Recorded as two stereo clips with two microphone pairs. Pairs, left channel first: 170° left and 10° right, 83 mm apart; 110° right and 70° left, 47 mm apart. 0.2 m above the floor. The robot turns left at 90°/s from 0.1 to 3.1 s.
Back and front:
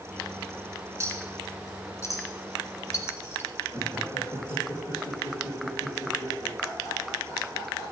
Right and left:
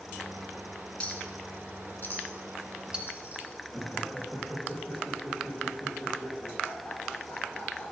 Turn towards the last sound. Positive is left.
turn(degrees=155)